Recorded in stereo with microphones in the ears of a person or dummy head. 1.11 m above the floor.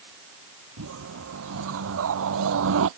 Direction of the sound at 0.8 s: 65° right (ahead or behind).